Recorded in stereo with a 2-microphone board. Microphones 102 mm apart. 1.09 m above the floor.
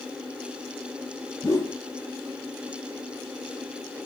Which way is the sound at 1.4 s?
35° left (ahead or behind).